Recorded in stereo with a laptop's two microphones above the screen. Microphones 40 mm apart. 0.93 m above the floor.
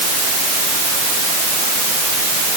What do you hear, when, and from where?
Only background noise.